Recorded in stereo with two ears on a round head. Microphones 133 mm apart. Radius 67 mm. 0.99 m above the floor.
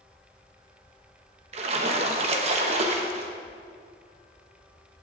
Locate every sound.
1.5 s a splash: 40° right (ahead or behind), 1.2 m